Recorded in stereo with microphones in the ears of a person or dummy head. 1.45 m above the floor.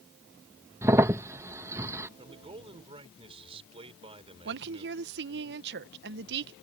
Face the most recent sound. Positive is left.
turn(degrees=-60)  # may be behind; listen again after turning